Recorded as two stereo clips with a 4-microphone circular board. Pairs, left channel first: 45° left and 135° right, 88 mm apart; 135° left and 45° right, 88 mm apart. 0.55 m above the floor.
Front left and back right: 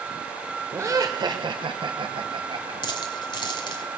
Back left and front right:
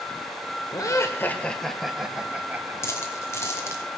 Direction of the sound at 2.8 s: 75° left.